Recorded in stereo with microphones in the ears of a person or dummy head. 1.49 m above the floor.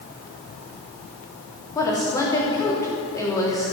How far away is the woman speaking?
About 3 m.